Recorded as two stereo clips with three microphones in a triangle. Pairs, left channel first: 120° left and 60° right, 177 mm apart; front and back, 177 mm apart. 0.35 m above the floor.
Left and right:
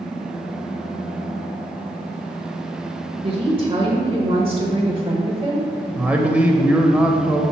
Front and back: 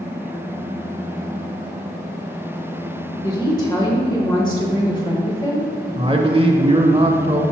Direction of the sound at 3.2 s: 35° right.